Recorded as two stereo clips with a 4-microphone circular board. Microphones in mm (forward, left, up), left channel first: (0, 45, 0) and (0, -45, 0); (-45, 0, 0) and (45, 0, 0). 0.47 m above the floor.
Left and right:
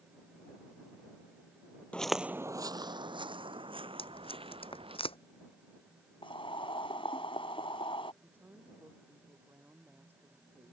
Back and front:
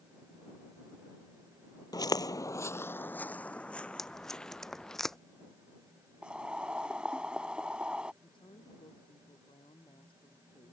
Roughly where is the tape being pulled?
Left.